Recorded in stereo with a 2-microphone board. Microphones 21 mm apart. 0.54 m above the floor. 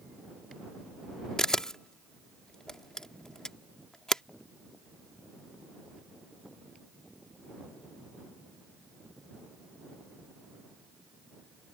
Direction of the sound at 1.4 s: 30° left (ahead or behind).